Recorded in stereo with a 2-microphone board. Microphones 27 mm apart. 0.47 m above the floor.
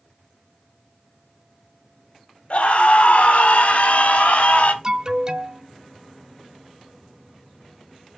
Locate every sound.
2.5 s a scream: 60° left (ahead or behind), 2.5 m; by 4.7 s 65° left (ahead or behind), 2 m
4.8 s an alarm: 25° right (ahead or behind), 0.9 m